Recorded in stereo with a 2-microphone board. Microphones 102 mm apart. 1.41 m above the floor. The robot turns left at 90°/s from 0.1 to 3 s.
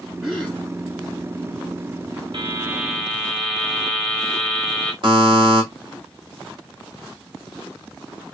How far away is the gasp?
About 3.5 m.